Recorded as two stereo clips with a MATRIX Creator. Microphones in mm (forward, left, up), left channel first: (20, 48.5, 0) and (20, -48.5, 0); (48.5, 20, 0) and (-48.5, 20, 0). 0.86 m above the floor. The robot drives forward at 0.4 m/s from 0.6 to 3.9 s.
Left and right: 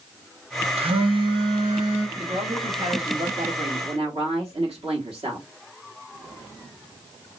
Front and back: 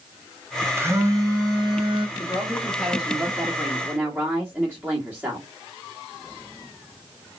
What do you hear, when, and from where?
0.8 s a phone buzzing: 115° right, 0.8 m; by 2.1 s 140° right, 1.1 m
2.2 s a woman speaking: 80° right, 1.4 m; by 5.5 s 110° right, 1.4 m